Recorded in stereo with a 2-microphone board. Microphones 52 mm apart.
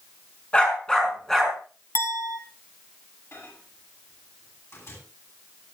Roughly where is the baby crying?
I don't hear a baby crying.